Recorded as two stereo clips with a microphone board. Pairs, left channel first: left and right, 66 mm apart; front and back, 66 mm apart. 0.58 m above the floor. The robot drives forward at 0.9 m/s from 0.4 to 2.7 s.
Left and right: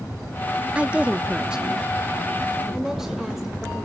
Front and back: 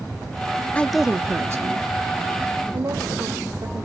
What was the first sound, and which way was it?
A woman speaking, 40° right.